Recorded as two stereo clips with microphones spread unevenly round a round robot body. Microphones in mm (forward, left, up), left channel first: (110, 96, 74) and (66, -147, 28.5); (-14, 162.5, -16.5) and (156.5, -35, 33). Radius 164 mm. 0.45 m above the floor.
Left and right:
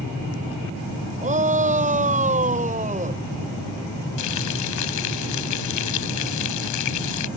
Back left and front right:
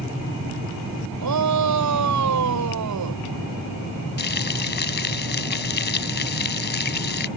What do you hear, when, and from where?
1.2 s a shout: 40° right
4.2 s frying: 80° left